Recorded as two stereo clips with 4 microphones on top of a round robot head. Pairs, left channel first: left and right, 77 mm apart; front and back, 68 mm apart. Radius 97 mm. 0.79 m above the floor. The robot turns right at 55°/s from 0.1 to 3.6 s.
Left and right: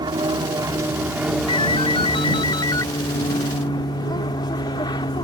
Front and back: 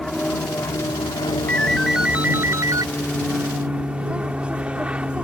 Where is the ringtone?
75° left; by 2.9 s 150° left.